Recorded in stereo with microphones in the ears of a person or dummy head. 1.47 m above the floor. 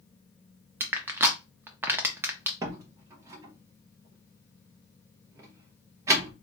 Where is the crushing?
15° right (ahead or behind), 0.6 m.